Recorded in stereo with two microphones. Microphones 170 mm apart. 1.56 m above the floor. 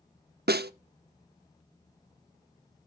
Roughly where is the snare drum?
Right.